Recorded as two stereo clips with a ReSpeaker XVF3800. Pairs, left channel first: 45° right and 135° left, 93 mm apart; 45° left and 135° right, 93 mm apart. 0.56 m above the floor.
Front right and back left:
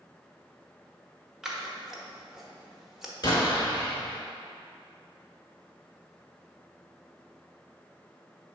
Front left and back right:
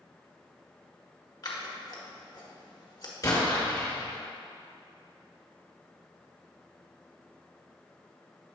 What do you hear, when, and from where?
1.4 s scissors: 50° left, 1.0 m
3.2 s an explosion: 5° right, 2.0 m